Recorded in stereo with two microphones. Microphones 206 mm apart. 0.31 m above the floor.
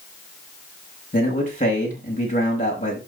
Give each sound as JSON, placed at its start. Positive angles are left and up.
{"t": 1.1, "sound": "a man speaking", "side_deg": 35, "distance_m": 5.0}